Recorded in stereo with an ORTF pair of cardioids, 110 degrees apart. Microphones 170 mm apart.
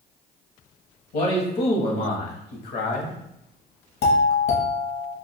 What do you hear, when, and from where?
1.1 s a man speaking: 70° left, 1.3 m
4.0 s a doorbell: 70° left, 1.3 m